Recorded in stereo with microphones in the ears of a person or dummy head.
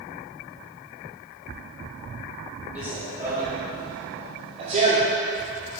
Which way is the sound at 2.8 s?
10° right (ahead or behind).